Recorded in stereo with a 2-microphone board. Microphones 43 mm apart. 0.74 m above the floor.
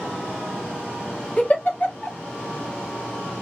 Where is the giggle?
35° left (ahead or behind), 1.1 m.